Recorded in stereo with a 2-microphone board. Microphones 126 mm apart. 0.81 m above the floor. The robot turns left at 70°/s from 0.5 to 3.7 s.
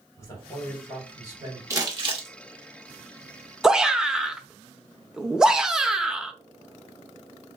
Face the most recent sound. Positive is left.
turn(degrees=-5)  # may be behind; listen again after turning